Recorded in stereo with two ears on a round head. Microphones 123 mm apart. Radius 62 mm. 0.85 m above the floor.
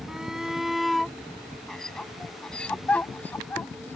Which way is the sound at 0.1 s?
5° right (ahead or behind).